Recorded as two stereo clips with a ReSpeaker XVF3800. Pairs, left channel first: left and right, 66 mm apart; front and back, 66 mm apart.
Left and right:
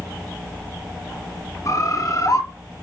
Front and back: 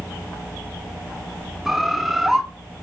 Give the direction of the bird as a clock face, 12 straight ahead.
9 o'clock.